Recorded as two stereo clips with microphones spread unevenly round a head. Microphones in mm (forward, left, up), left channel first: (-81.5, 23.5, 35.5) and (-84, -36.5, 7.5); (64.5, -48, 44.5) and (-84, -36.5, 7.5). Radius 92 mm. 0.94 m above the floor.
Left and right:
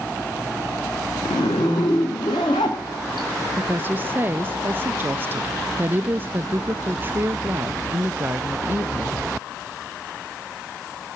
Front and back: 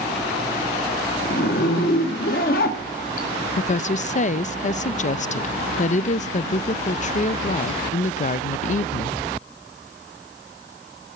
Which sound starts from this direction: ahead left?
A zipper, at 1.2 s.